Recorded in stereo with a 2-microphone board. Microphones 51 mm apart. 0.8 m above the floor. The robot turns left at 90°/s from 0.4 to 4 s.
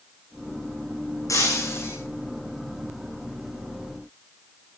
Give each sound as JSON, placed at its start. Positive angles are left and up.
{"t": 1.3, "sound": "breaking glass", "azimuth_deg": 95, "distance_m": 9.0}